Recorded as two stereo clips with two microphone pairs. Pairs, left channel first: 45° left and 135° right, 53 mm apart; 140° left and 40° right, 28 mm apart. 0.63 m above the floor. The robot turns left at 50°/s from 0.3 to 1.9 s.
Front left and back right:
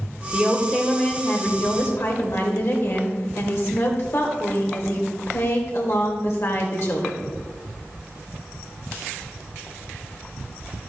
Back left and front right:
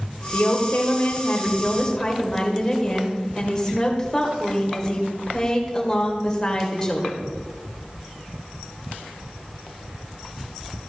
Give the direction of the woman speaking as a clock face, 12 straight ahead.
7 o'clock.